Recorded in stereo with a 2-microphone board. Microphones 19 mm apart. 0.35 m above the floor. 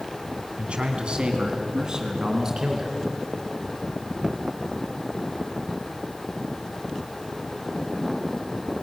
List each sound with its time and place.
0.6 s a man speaking: 65° right (ahead or behind), 3 m; by 3.0 s 20° right (ahead or behind), 4.5 m